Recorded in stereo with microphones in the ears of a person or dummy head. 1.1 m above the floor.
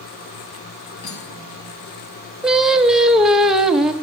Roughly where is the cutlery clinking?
Left.